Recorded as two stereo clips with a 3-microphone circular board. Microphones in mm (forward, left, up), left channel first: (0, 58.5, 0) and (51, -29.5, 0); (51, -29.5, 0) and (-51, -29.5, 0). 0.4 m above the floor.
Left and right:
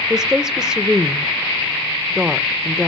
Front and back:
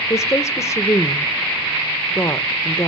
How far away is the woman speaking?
About 0.9 m.